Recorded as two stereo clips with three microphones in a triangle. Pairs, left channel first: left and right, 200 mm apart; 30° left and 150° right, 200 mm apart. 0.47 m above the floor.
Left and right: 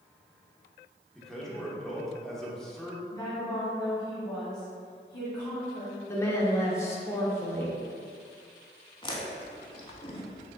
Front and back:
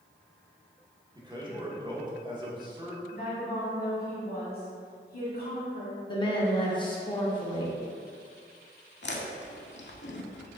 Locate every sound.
1.1 s a man speaking: 175° left, 0.9 m
3.1 s a woman speaking: 25° left, 1.7 m
6.1 s a woman speaking: 35° left, 0.7 m
9.0 s chewing: 30° left, 0.6 m